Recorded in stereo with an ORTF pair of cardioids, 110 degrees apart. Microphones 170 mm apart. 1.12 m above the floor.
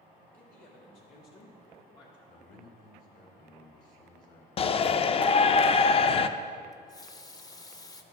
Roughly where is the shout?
Ahead left.